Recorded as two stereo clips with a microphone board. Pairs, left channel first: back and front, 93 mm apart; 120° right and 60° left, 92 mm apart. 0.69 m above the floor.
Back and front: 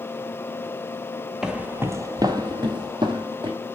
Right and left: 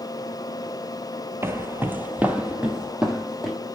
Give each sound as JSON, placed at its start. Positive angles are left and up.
{"t": 1.4, "sound": "footsteps", "azimuth_deg": 80, "distance_m": 0.7}